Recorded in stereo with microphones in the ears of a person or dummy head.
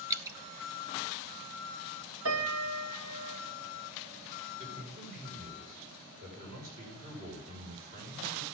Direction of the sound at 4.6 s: 50° right (ahead or behind).